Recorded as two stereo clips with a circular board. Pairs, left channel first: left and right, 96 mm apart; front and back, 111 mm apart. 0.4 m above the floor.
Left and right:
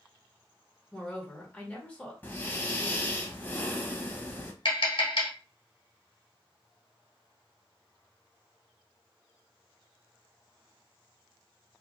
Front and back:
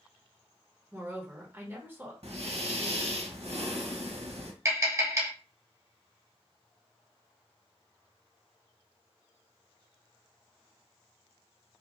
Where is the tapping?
115° left, 2 m.